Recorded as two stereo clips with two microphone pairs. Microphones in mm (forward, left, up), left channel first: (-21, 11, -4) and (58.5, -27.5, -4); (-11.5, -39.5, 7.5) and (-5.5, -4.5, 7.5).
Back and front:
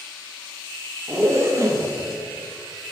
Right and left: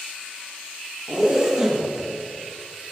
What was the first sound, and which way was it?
A zipper, 10° left.